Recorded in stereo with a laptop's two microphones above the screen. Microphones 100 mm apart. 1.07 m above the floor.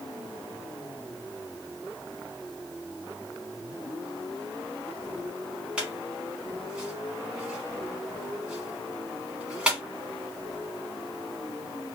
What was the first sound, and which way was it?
A squeak, 10° right (ahead or behind).